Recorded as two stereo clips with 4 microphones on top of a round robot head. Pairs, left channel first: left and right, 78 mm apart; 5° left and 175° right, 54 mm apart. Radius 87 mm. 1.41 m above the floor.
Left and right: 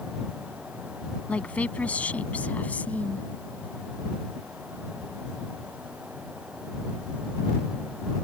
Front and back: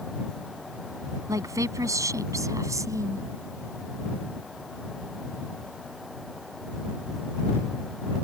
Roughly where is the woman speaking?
Behind.